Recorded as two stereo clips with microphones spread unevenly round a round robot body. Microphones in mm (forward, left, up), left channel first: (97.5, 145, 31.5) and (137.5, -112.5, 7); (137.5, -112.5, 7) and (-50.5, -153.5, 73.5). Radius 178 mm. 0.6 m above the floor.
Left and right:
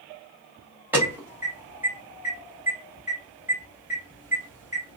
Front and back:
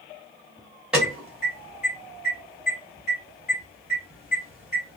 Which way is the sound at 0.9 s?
30° right.